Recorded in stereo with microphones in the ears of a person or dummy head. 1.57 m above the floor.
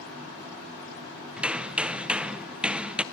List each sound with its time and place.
1.4 s hammering: 5° right (ahead or behind), 0.6 m